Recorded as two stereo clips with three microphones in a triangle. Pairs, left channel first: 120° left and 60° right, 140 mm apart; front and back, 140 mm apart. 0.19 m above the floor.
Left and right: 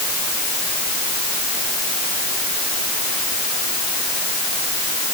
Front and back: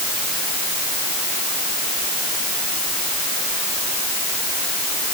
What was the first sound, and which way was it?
Only background noise.